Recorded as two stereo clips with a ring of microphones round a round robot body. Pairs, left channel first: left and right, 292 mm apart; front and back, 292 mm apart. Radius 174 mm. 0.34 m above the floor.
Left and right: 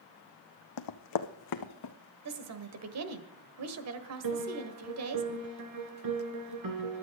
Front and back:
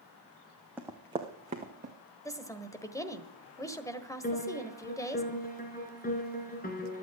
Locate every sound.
0.8 s running footsteps: 95° left, 0.9 m; by 1.9 s 115° left, 1.5 m
2.2 s a woman speaking: 80° right, 1.5 m
4.2 s a piano: 60° right, 2 m